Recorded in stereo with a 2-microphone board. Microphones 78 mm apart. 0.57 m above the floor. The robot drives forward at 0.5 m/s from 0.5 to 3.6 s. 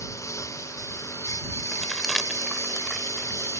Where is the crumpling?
5° right (ahead or behind); by 3.6 s centre (ahead or behind).